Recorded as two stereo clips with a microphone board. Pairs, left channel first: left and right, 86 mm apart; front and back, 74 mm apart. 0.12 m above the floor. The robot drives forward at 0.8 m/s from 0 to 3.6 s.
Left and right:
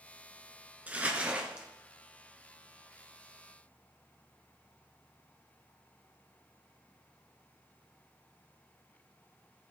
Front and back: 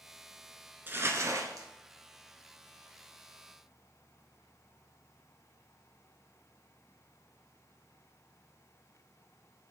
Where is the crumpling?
145° right, 0.8 m; by 1.7 s 165° right, 1.3 m.